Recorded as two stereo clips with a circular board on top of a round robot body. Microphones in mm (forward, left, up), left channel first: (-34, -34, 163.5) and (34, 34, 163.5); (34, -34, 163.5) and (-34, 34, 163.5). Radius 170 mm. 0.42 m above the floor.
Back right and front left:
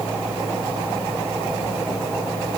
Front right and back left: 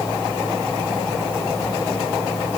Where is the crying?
I don't hear crying.